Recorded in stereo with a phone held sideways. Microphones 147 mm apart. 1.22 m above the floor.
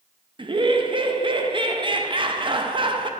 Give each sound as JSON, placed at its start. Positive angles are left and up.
{"t": 0.4, "sound": "laughter", "side_deg": -35, "distance_m": 0.5}